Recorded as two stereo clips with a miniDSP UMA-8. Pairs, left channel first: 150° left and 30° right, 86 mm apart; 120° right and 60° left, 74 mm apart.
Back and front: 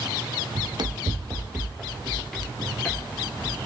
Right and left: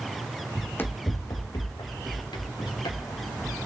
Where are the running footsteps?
40° right, 0.6 m; by 3.6 s 135° right, 2.5 m.